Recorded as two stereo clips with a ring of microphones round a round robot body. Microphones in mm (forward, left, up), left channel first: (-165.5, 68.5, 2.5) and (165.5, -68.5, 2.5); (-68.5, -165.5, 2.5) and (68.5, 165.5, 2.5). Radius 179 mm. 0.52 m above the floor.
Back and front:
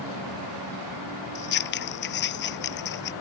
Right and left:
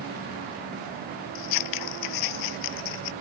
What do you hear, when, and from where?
1.4 s scissors: 145° right